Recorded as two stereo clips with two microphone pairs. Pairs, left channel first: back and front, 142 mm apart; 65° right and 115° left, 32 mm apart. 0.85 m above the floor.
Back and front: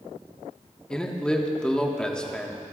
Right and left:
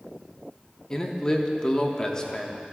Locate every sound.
0.9 s a man speaking: 105° right, 1.0 m